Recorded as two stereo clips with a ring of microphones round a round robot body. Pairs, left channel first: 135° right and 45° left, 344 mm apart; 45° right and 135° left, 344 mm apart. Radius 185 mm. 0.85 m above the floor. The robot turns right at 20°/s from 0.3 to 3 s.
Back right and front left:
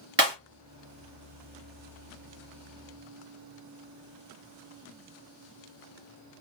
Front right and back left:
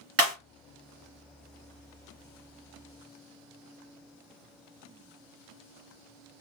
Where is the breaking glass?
105° left, 1.8 m.